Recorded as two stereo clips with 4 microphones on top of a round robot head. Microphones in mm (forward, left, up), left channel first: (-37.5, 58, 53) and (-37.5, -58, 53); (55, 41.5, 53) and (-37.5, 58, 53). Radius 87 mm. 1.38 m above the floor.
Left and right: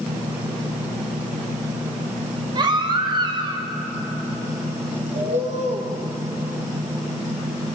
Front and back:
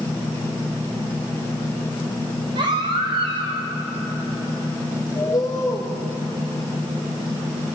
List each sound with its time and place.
2.5 s a baby crying: 140° right, 2.5 m
5.2 s a bird: 70° right, 2.5 m